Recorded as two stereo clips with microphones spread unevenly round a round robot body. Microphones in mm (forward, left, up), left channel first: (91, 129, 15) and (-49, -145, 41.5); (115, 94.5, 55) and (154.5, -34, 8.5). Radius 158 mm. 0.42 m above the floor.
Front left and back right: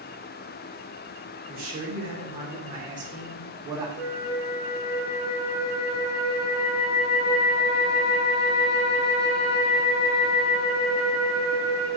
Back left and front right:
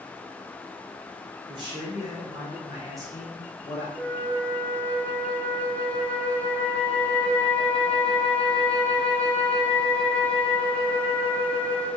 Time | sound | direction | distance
1.5 | a man speaking | 60° right | 1.3 m
4.0 | a flute | 10° left | 1.8 m